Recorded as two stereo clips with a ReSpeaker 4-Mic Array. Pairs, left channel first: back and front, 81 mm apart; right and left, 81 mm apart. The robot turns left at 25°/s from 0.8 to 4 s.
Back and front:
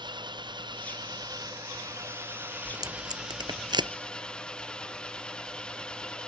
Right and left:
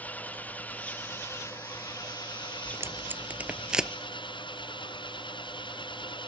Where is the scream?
No scream in this recording.